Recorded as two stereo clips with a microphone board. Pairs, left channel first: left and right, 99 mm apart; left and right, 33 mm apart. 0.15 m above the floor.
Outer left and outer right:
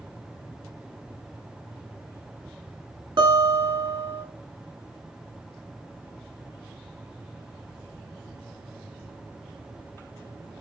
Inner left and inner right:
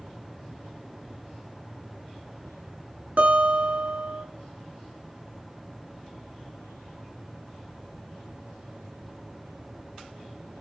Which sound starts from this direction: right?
A guitar, at 3.2 s.